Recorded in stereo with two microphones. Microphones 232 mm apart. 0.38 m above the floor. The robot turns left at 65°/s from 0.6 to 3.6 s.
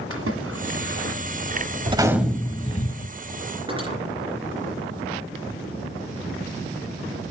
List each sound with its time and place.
0.1 s a splash: 75° right (ahead or behind), 1.8 m; by 1.2 s 35° right (ahead or behind), 1.8 m
1.9 s a gunshot: 155° right, 0.9 m; by 3.1 s 120° left, 0.9 m
3.7 s cutlery clinking: 20° right (ahead or behind), 3 m